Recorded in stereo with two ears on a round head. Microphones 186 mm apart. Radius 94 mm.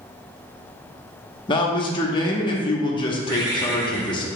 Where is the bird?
20° right (ahead or behind), 0.9 m.